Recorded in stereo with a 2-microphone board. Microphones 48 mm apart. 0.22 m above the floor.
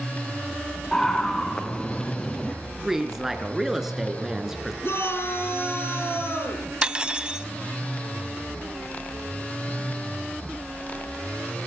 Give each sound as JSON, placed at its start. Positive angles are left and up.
{"t": 0.9, "sound": "a scream", "side_deg": 15, "distance_m": 1.9}
{"t": 2.8, "sound": "a woman speaking", "side_deg": -10, "distance_m": 3.5}
{"t": 4.8, "sound": "a shout", "side_deg": 60, "distance_m": 6.0}
{"t": 6.8, "sound": "cutlery clinking", "side_deg": -20, "distance_m": 0.7}